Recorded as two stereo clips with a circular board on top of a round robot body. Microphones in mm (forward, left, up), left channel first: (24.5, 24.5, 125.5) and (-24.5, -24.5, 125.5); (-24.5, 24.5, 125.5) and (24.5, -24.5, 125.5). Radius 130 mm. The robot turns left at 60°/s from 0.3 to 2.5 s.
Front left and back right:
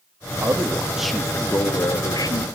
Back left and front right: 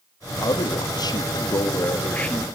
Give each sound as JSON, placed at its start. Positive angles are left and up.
{"t": 0.4, "sound": "a man speaking", "azimuth_deg": 175, "distance_m": 1.7}